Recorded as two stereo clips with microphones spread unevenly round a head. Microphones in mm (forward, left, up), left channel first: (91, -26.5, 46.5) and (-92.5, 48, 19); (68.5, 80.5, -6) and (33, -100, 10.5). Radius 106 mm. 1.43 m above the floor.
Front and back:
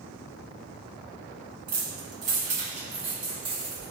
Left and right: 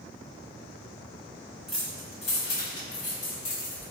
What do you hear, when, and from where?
1.7 s keys jangling: straight behind, 0.5 m; by 3.9 s 85° left, 1.3 m